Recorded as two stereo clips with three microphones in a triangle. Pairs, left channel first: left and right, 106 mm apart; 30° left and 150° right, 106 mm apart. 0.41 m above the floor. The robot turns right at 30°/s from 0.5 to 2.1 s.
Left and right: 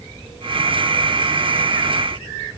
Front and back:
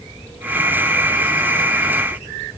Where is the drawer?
No drawer in this recording.